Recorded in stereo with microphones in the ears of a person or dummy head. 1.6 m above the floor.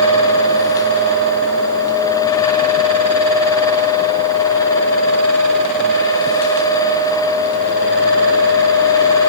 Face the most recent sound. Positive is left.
No sound to turn to.